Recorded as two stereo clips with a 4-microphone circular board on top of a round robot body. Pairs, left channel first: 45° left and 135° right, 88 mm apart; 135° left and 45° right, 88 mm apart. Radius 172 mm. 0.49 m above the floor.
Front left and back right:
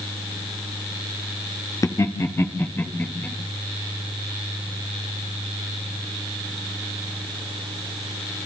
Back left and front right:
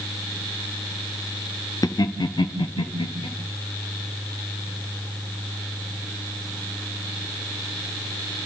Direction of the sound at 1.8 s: 95° left.